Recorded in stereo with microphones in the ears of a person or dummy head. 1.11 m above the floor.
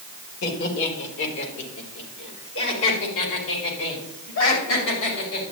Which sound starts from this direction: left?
Laughter, at 0.4 s.